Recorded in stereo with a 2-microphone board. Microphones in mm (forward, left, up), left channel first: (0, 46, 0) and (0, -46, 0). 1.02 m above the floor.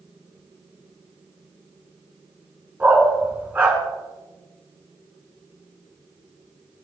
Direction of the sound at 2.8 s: 20° right (ahead or behind).